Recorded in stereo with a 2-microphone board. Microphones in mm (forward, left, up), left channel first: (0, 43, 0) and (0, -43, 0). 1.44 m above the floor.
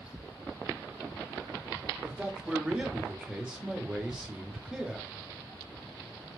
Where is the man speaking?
10° right (ahead or behind), 0.9 m.